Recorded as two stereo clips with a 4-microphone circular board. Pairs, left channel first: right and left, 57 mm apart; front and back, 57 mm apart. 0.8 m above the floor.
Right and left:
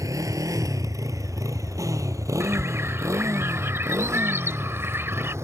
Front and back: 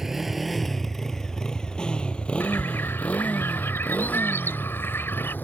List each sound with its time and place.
0.0 s a motorcycle: 95° left; by 5.5 s 55° left
2.4 s a bird: 45° left